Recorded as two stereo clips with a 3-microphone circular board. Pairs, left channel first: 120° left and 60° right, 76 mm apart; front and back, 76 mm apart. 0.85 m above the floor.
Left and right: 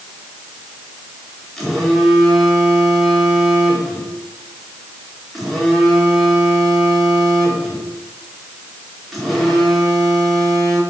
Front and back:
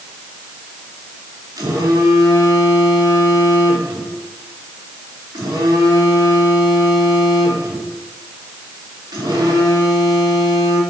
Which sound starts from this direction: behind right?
A phone buzzing, at 1.6 s.